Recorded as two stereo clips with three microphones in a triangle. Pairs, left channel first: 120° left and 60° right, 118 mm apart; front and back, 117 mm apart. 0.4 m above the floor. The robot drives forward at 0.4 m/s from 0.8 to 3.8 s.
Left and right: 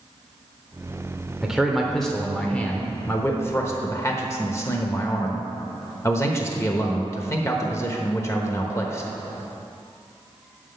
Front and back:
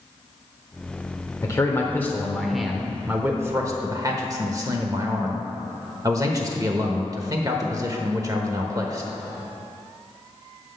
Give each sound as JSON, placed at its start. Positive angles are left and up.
{"t": 1.4, "sound": "a man speaking", "azimuth_deg": 20, "distance_m": 0.9}